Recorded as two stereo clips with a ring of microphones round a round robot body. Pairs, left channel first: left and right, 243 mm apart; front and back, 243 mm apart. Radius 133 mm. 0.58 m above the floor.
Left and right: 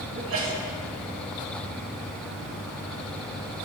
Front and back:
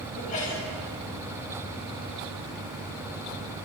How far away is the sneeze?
About 4 m.